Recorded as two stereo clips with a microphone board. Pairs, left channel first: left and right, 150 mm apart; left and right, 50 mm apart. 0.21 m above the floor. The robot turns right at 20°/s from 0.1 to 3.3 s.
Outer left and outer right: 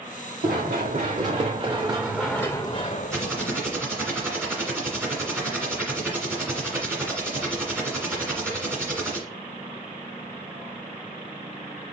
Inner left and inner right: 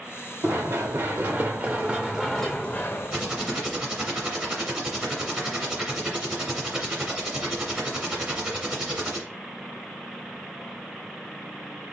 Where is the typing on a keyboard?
20° right (ahead or behind), 1.9 m; by 9.2 s 15° right (ahead or behind), 1.9 m.